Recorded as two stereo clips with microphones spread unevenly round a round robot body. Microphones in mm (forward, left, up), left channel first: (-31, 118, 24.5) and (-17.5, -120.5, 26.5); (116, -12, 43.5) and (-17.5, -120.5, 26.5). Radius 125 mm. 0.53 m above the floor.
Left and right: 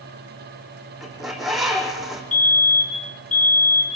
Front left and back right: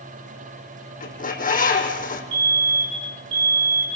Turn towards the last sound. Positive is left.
turn(degrees=150)